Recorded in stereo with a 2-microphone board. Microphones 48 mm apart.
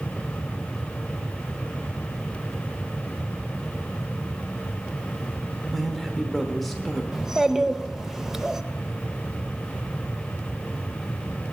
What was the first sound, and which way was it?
A man speaking, centre (ahead or behind).